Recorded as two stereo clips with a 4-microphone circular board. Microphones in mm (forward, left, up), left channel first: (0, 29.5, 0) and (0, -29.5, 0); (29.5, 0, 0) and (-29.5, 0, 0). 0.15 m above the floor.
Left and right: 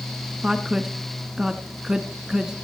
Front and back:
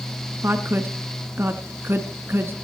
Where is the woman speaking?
160° right, 1.7 m.